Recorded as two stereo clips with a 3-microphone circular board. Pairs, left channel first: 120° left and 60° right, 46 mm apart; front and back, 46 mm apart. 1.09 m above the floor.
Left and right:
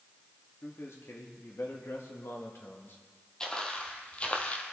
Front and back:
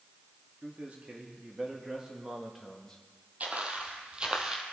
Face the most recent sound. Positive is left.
turn(degrees=115)